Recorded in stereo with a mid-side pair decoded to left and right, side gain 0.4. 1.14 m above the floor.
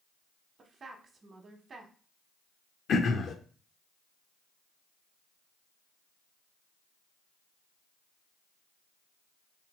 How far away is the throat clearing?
About 0.5 m.